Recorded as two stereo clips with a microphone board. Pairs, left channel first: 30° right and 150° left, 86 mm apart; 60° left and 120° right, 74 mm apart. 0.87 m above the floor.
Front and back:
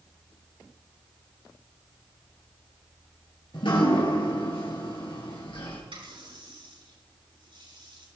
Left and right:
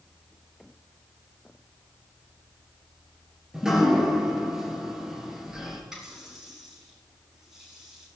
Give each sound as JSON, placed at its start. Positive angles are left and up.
{"t": 3.5, "sound": "dripping", "azimuth_deg": -40, "distance_m": 3.5}
{"t": 5.9, "sound": "a running tap", "azimuth_deg": 155, "distance_m": 6.0}